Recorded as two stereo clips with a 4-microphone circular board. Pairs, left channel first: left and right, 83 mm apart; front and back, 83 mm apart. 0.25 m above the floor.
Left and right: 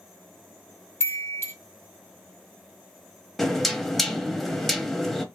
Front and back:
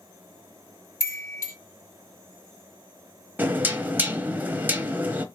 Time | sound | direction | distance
1.0 | a chime | 40° left | 2.5 m
3.4 | knocking | 175° left | 0.7 m